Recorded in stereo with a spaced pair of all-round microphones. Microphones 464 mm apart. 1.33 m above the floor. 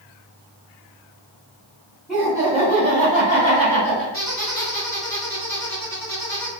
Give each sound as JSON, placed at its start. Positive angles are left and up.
{"t": 2.1, "sound": "laughter", "side_deg": 0, "distance_m": 1.8}
{"t": 4.1, "sound": "a squeak", "side_deg": -35, "distance_m": 2.0}